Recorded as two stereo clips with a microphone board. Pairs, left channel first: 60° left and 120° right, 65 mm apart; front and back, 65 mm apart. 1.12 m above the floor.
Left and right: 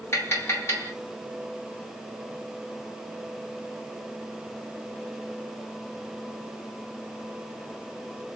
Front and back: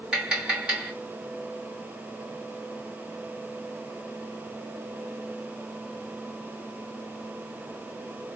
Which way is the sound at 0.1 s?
105° left.